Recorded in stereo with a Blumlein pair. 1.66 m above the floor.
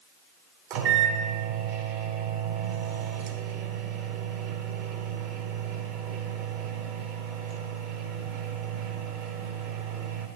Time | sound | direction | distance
0.7 | a microwave | 40° right | 0.8 m